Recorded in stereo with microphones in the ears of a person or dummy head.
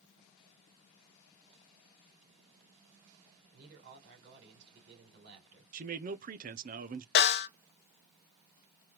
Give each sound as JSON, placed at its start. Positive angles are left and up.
{"t": 3.5, "sound": "a man speaking", "side_deg": -60, "distance_m": 3.5}
{"t": 5.7, "sound": "a man speaking", "side_deg": -35, "distance_m": 0.5}
{"t": 7.2, "sound": "a snare drum", "side_deg": 50, "distance_m": 0.9}